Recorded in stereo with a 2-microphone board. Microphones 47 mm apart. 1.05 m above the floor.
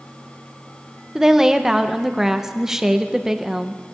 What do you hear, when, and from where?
1.1 s a woman speaking: 10° right (ahead or behind), 0.9 m